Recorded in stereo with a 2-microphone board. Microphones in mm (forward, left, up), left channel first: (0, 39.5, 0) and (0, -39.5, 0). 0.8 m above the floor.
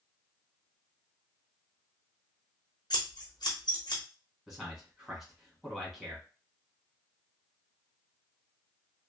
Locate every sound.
2.9 s scissors: 60° left (ahead or behind), 0.9 m
4.5 s a man speaking: 5° right (ahead or behind), 1.3 m